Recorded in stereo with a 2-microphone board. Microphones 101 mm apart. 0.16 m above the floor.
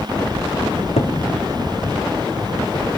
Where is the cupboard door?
80° left, 3.5 m.